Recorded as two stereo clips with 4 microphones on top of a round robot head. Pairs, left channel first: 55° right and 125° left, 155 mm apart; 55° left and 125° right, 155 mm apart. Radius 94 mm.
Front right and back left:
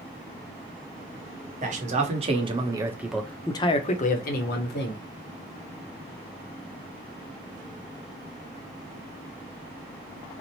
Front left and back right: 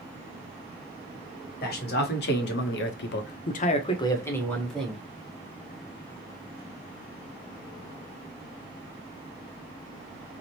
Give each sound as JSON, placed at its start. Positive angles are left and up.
{"t": 1.6, "sound": "a man speaking", "azimuth_deg": 85, "distance_m": 1.1}